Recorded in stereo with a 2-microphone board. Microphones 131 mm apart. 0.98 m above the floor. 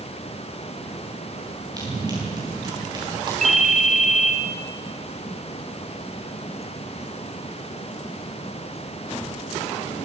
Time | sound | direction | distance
1.8 | running footsteps | 30° right (ahead or behind) | 9 m
3.4 | a ringtone | 65° right (ahead or behind) | 1.6 m